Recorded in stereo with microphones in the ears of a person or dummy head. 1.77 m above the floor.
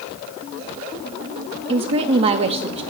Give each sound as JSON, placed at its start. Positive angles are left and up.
{"t": 1.7, "sound": "a woman speaking", "side_deg": -30, "distance_m": 0.6}